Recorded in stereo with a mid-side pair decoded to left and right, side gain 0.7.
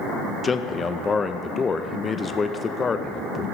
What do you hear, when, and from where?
0.4 s a man speaking: 25° left, 0.6 m